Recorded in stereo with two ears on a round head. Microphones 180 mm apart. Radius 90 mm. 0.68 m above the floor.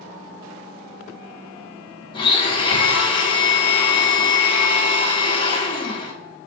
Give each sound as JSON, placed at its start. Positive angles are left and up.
{"t": 2.1, "sound": "a blender", "side_deg": 25, "distance_m": 1.7}